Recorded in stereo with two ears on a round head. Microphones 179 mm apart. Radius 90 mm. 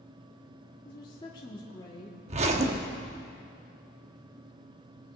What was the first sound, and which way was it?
A woman speaking, 25° left (ahead or behind).